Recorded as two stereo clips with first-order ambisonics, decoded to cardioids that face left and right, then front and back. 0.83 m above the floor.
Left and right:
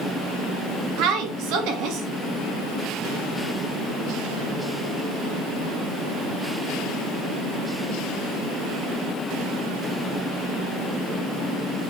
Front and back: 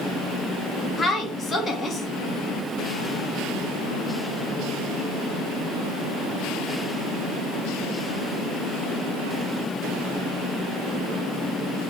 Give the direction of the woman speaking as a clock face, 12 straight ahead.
2 o'clock.